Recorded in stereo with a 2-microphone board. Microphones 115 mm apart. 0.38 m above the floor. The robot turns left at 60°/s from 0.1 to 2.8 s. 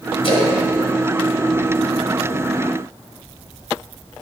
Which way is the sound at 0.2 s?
55° left (ahead or behind).